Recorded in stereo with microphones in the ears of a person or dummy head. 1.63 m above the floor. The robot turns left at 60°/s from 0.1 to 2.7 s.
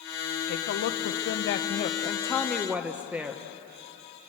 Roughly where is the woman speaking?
Behind left.